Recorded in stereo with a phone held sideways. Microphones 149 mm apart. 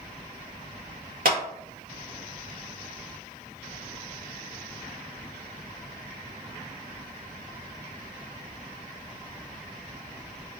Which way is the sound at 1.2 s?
65° right (ahead or behind).